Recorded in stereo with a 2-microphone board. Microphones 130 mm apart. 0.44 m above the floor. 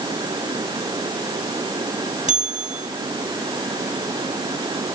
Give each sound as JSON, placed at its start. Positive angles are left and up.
{"t": 2.3, "sound": "a bell", "side_deg": -70, "distance_m": 2.5}